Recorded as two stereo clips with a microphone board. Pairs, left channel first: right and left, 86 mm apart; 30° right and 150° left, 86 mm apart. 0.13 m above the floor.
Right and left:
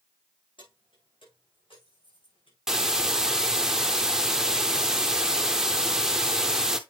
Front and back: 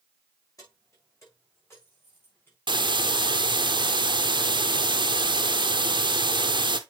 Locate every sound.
0.6 s keys jangling: 80° right, 5 m; by 2.6 s 95° right, 6 m
2.7 s a hiss: 175° left, 0.9 m